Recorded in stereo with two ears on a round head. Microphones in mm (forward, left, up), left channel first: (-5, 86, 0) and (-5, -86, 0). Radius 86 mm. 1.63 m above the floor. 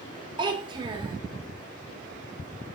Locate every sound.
0.4 s a child speaking: 25° right (ahead or behind), 1.0 m